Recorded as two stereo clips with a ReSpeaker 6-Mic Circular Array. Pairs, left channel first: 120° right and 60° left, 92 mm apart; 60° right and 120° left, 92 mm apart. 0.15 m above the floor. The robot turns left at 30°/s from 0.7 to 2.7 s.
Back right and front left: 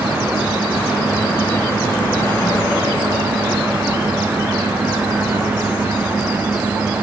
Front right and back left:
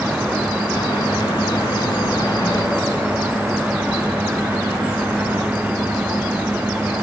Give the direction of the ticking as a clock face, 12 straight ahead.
I don't hear ticking.